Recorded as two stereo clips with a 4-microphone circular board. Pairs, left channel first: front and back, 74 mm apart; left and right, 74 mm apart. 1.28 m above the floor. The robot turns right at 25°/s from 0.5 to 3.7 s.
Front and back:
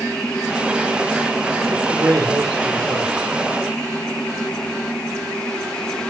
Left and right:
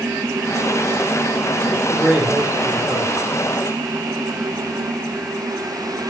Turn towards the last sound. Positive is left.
turn(degrees=-120)